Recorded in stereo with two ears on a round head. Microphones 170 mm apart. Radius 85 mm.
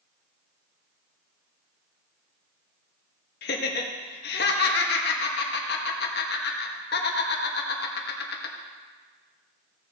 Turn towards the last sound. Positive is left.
turn(degrees=55)  # may be behind; listen again after turning